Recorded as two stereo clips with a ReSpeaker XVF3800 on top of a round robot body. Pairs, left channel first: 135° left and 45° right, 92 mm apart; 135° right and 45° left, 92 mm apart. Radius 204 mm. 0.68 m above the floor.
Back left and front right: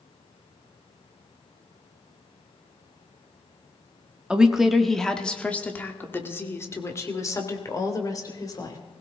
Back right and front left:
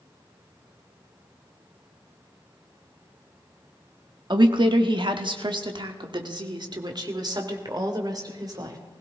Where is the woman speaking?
35° left, 1.4 m; by 8.8 s 90° left, 3 m.